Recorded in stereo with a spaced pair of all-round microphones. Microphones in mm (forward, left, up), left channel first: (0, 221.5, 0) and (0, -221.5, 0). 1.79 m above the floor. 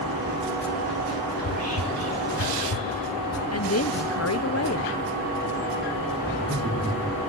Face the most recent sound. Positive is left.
turn(degrees=-15)  # may be behind; listen again after turning